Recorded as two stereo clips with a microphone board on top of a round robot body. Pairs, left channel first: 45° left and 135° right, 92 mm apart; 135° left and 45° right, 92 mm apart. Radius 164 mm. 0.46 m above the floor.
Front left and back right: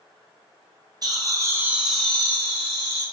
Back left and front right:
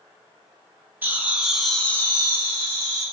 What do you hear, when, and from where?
1.0 s laughter: 105° right, 1.1 m; by 3.0 s 90° left, 1.4 m